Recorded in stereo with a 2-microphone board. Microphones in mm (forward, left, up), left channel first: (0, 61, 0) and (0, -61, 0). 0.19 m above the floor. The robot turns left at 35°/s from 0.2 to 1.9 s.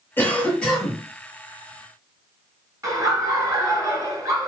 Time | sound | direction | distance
0.2 | a cough | 20° left (ahead or behind) | 2.5 m
2.8 | laughter | 30° right (ahead or behind) | 2 m